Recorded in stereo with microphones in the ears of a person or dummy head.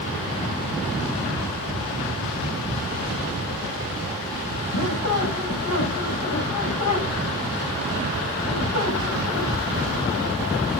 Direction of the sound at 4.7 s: 85° left.